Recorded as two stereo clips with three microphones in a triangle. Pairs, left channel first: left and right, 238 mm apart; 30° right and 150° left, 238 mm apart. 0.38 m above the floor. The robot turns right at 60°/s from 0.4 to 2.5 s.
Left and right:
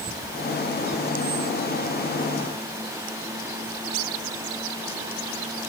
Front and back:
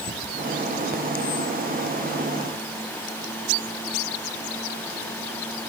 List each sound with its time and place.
Only background noise.